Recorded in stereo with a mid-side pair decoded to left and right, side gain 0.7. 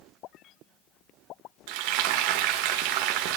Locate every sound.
1.7 s frying: 70° right, 1.4 m